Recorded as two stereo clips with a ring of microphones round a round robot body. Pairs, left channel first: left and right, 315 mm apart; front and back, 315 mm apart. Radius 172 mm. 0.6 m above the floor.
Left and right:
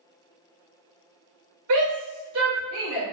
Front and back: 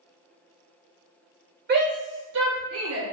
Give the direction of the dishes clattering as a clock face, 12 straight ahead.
No dishes clattering in this recording.